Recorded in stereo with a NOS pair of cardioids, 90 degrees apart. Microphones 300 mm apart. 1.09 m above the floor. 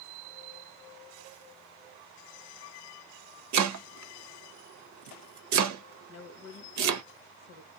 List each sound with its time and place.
3.5 s chopping: 70° right, 0.7 m
6.1 s a woman speaking: 60° left, 1.1 m